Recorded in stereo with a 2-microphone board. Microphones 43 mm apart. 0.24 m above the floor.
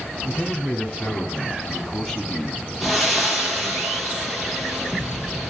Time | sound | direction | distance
0.2 | a man speaking | 35° left (ahead or behind) | 2.5 m
2.8 | breathing | 5° right (ahead or behind) | 4 m